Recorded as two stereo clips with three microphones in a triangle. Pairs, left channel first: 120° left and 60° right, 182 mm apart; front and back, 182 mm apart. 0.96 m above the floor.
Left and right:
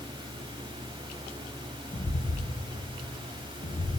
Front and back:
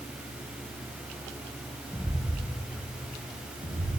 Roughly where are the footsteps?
Left.